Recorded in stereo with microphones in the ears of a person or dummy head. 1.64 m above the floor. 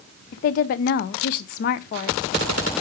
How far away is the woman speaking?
About 0.6 m.